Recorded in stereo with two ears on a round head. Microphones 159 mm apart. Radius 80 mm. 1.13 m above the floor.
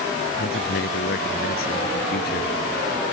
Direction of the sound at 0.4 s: 60° left (ahead or behind).